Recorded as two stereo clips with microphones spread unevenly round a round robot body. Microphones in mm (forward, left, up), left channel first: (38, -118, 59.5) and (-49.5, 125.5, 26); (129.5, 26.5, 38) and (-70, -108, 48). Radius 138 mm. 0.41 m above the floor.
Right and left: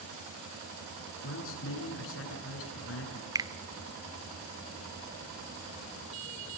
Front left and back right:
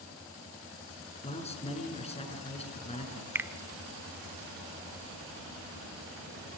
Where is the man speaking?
30° right, 6.5 m.